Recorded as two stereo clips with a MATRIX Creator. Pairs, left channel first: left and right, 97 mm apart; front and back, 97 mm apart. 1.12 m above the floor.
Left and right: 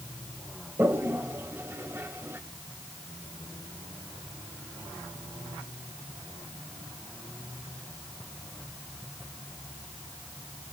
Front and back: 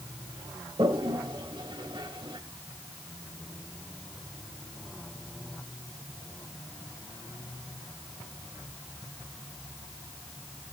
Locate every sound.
0.8 s a toilet flushing: 150° right, 1.9 m